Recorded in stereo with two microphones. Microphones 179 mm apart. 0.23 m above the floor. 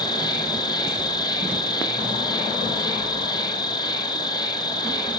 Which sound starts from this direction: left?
An insect, at 0.0 s.